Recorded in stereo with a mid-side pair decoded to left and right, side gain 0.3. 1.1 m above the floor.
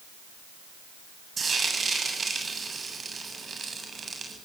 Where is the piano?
No piano in this recording.